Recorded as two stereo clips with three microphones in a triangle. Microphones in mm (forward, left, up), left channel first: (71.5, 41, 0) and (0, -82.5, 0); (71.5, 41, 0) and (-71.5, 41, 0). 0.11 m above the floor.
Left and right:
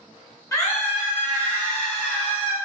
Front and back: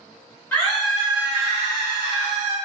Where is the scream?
55° left, 1.4 m; by 2.5 s 150° left, 2.0 m.